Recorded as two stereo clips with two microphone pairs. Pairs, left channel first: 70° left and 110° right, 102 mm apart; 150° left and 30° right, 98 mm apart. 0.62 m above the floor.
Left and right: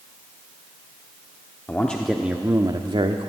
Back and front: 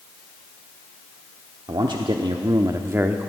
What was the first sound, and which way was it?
A man speaking, straight ahead.